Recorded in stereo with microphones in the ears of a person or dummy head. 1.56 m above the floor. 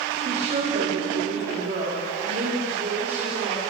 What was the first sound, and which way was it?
A woman speaking, 35° right (ahead or behind).